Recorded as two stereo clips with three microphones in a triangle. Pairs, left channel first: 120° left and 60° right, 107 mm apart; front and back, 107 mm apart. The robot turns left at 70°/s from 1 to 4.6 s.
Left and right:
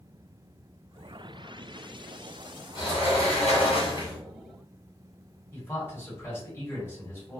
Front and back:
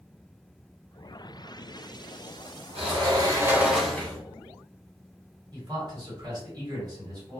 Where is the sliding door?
165° left, 1.0 m; by 4.2 s 60° left, 1.0 m.